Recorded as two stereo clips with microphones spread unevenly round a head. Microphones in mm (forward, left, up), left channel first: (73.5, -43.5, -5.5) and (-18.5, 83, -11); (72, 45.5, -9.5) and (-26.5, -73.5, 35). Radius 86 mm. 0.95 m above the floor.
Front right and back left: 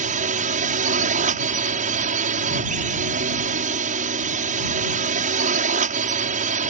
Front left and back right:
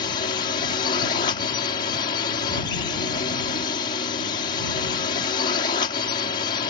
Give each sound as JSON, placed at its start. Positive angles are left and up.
{"t": 0.0, "sound": "a drone", "azimuth_deg": 100}